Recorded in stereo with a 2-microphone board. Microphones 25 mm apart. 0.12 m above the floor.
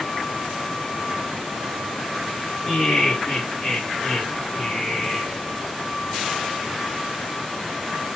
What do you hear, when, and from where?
2.6 s laughter: 45° left (ahead or behind), 2.5 m; by 5.4 s centre (ahead or behind), 3 m